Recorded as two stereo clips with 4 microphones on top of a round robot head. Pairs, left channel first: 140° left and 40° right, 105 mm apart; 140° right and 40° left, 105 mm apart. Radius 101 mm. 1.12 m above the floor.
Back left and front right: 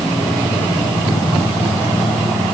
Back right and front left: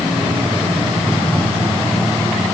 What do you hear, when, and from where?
Only background noise.